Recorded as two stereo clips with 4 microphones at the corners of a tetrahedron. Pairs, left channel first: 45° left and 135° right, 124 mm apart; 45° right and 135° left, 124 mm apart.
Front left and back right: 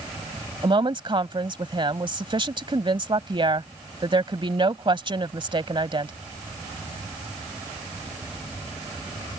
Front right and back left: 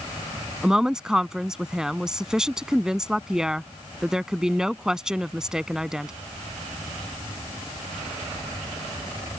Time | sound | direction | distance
0.6 | a woman speaking | 145° right | ?